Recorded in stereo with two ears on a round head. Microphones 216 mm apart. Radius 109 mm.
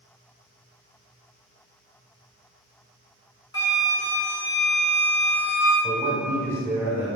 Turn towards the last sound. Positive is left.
turn(degrees=-15)  # may be behind; listen again after turning